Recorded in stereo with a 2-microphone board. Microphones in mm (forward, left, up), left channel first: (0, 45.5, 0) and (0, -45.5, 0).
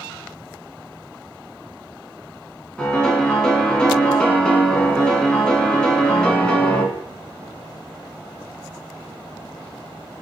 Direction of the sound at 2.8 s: 10° left (ahead or behind).